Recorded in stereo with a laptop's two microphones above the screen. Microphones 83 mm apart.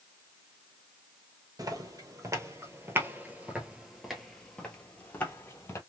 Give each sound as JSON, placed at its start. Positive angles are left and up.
{"t": 1.6, "sound": "footsteps", "side_deg": -45, "distance_m": 1.5}